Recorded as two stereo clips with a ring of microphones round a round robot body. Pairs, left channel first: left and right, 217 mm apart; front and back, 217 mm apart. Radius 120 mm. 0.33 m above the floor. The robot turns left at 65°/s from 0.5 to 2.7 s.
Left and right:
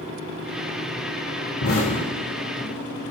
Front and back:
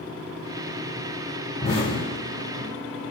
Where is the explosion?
75° left, 3.5 m; by 2.7 s 5° left, 3.5 m.